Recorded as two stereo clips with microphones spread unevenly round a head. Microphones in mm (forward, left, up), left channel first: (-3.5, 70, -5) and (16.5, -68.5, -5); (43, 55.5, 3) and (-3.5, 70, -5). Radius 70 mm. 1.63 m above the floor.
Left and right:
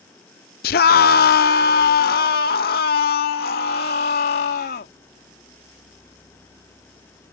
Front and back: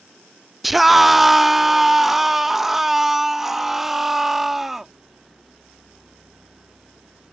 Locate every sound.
0.6 s a scream: 75° left